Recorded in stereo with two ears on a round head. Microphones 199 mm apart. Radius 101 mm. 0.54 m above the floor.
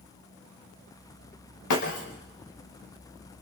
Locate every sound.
1.7 s breaking glass: 85° left, 5 m